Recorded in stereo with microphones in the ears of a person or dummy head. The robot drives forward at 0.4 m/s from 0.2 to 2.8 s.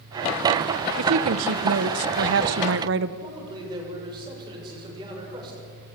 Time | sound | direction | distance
1.0 | a woman speaking | 75° right (ahead or behind) | 1.2 m
3.2 | a man speaking | 30° right (ahead or behind) | 6.5 m